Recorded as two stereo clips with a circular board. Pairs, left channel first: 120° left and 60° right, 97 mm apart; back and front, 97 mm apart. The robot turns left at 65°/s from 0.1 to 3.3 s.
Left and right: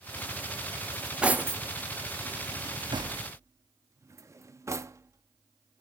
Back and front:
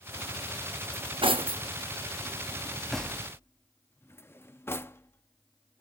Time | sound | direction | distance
0.9 | cutlery clinking | 40° left | 0.6 m